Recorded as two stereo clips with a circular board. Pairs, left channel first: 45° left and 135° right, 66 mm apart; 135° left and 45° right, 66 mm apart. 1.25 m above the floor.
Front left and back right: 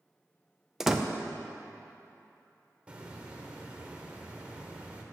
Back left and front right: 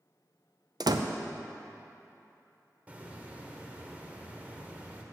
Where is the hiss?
85° right, 1.0 m.